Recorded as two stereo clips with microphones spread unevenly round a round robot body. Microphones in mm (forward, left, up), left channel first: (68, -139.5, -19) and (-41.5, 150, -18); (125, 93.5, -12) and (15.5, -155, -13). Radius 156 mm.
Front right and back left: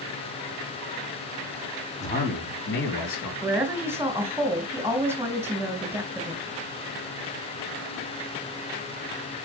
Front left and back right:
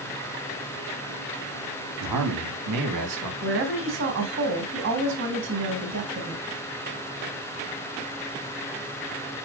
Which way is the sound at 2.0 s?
140° right.